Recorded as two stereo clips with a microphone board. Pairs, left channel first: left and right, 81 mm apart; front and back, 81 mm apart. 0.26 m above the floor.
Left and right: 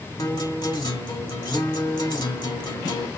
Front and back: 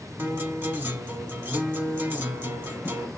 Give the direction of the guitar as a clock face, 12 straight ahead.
8 o'clock.